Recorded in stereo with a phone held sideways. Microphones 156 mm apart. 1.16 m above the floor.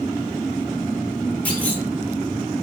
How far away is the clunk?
About 0.9 m.